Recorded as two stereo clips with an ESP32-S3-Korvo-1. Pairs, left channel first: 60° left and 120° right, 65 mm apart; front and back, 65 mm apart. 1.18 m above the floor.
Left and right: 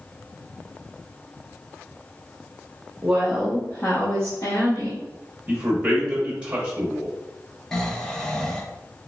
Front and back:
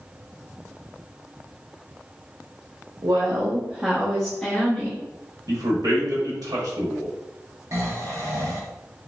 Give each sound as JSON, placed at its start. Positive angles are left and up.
{"t": 3.0, "sound": "a woman speaking", "azimuth_deg": 175, "distance_m": 0.8}
{"t": 5.5, "sound": "a man speaking", "azimuth_deg": 170, "distance_m": 1.1}
{"t": 7.7, "sound": "snoring", "azimuth_deg": 145, "distance_m": 0.7}